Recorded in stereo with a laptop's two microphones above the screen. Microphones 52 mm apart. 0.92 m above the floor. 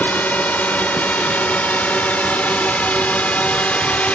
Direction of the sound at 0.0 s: 30° left (ahead or behind).